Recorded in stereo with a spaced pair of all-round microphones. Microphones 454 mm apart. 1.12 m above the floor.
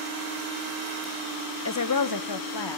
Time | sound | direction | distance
1.6 | a woman speaking | 30° left (ahead or behind) | 0.7 m